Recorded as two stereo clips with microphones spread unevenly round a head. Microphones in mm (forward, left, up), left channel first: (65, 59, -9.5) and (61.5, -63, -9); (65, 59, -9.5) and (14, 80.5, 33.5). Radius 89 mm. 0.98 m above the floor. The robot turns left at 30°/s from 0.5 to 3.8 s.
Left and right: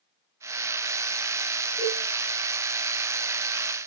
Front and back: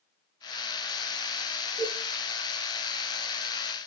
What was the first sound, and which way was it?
A cowbell, 175° left.